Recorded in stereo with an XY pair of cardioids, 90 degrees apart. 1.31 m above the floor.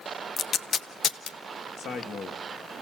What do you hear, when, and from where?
0.4 s tape being pulled: 65° left, 0.7 m
1.8 s a man speaking: 70° left, 2 m